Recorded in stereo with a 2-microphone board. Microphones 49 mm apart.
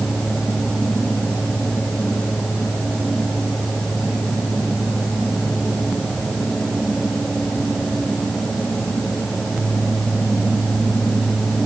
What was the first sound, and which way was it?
Only background noise.